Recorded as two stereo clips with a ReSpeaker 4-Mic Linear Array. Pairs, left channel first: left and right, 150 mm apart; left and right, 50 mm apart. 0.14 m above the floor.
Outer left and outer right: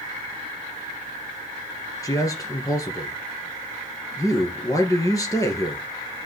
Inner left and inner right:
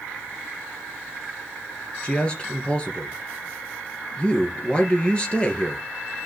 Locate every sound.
2.0 s a man speaking: 20° left (ahead or behind), 1.9 m